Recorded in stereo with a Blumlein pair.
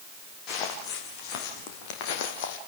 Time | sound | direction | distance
0.5 | footsteps | 35° left | 5.5 m